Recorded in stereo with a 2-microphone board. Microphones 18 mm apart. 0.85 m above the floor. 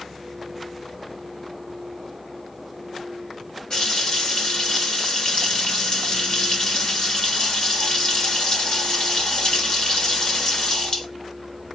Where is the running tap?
45° left (ahead or behind), 1.6 m.